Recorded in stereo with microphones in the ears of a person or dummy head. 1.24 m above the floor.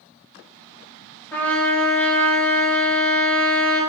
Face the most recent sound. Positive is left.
turn(degrees=10)  # may be behind; listen again after turning